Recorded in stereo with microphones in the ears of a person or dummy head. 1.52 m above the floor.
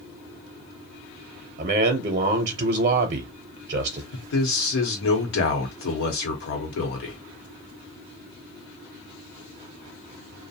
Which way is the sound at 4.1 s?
65° left (ahead or behind).